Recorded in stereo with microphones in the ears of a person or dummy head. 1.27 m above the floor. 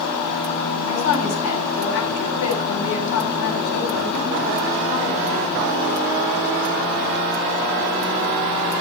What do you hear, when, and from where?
0.9 s a woman speaking: 75° left (ahead or behind), 6.5 m